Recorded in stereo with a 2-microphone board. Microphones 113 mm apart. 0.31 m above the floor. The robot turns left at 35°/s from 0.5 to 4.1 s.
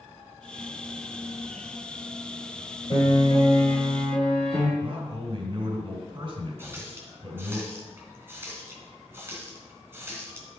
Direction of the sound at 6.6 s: 20° right (ahead or behind).